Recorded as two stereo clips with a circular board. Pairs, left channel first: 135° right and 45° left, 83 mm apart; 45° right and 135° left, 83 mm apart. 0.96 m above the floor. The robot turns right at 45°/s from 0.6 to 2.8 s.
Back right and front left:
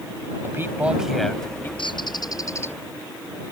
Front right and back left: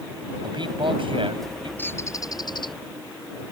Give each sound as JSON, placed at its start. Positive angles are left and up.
{"t": 0.4, "sound": "a man speaking", "azimuth_deg": 110}
{"t": 1.8, "sound": "a bird", "azimuth_deg": -115}